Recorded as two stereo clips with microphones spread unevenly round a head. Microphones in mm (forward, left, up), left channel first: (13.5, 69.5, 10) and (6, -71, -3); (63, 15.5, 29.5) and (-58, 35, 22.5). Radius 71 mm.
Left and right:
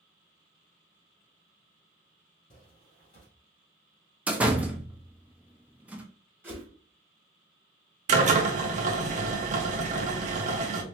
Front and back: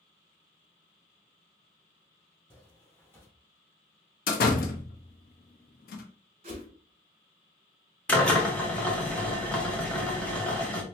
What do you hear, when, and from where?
2.5 s footsteps: 60° left, 2 m
4.3 s a door slam: 10° right, 0.6 m
6.4 s a whoosh: 170° right, 0.9 m
8.1 s a drill: 90° right, 0.7 m